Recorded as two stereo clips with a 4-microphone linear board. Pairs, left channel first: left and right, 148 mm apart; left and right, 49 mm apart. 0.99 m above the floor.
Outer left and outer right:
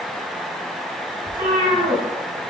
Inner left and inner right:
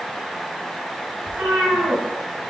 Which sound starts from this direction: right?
A cat meowing, at 1.3 s.